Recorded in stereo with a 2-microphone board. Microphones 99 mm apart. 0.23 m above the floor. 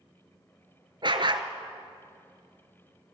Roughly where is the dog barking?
Right.